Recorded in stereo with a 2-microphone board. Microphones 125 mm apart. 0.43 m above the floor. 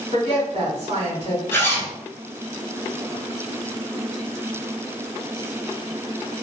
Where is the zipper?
20° left (ahead or behind), 0.9 m.